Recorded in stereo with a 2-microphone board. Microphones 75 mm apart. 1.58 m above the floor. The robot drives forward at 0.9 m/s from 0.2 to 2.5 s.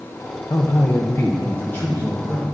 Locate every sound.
0.5 s a man speaking: 55° left (ahead or behind), 0.8 m; by 2.5 s 15° left (ahead or behind), 2.5 m